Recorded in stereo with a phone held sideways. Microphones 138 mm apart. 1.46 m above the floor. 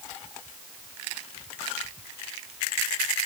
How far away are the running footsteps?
I don't hear running footsteps.